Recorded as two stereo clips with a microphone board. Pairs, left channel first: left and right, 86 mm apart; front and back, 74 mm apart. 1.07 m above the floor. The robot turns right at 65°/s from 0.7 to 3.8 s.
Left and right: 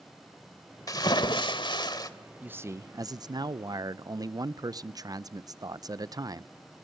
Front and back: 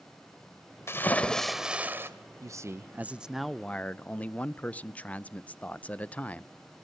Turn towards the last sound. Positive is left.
turn(degrees=-65)